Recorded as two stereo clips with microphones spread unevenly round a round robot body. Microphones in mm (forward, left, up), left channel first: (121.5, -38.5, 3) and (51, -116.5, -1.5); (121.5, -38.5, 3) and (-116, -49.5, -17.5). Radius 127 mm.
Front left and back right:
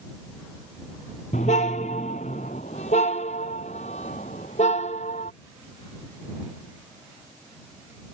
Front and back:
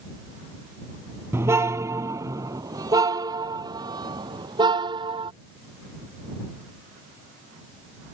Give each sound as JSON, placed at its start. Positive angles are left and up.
{"t": 1.3, "sound": "a car horn", "azimuth_deg": 100}